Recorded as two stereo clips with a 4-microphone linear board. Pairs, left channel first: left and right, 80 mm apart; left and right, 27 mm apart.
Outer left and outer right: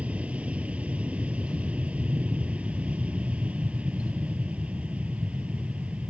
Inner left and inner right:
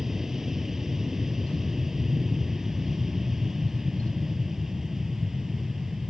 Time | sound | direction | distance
0.0 | an aircraft | 15° right (ahead or behind) | ?